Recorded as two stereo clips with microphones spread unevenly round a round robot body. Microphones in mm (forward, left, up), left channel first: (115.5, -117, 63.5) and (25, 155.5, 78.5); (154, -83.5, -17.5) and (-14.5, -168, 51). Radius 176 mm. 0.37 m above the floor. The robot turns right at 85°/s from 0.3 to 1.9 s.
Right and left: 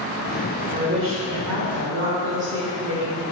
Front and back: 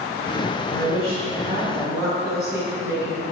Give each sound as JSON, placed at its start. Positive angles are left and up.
{"t": 0.7, "sound": "a woman speaking", "azimuth_deg": 50, "distance_m": 2.0}